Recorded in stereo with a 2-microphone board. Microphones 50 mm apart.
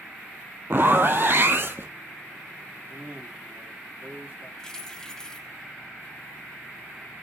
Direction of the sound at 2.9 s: 50° right (ahead or behind).